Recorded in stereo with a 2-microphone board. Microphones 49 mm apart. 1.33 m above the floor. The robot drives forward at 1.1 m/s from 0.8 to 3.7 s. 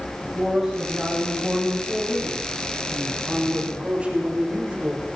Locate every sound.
0.2 s a man speaking: 20° right (ahead or behind), 8.5 m; by 5.1 s 30° right (ahead or behind), 5.5 m